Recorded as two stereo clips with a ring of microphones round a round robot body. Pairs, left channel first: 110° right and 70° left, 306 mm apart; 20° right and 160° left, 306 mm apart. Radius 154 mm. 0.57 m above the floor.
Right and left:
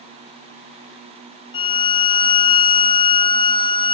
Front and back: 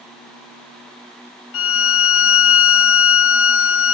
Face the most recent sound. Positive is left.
turn(degrees=-45)